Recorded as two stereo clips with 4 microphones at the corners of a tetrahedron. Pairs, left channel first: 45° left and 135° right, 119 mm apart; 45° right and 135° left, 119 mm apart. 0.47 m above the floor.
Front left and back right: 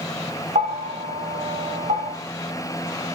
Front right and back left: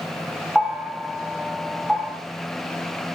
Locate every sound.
0.6 s a bell: 140° right, 0.9 m